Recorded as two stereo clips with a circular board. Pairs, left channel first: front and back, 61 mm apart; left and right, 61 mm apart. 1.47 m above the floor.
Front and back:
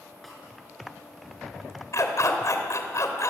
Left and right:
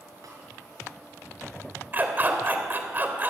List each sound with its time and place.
0.2 s a snare drum: 90° right, 6.5 m
1.9 s a dog barking: 35° right, 3 m